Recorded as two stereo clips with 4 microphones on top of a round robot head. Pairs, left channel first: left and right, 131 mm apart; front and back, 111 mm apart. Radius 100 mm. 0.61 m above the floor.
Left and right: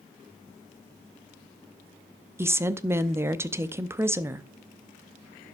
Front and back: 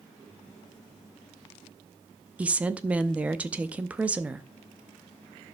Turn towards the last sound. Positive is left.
turn(degrees=-125)